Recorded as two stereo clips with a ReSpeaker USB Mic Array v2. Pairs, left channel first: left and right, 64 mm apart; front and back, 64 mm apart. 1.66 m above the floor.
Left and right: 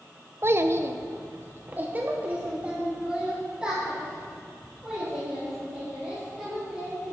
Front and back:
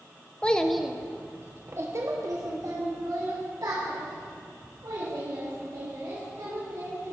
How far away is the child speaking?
About 0.7 m.